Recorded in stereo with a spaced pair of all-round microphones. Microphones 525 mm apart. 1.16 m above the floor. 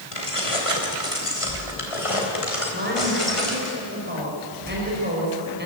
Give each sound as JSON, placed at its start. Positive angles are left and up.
{"t": 0.1, "sound": "keys jangling", "side_deg": 70, "distance_m": 3.0}
{"t": 2.7, "sound": "a woman speaking", "side_deg": -20, "distance_m": 5.0}